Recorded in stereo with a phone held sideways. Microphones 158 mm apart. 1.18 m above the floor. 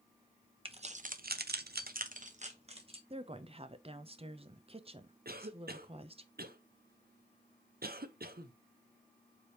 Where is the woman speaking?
35° right (ahead or behind), 0.7 m.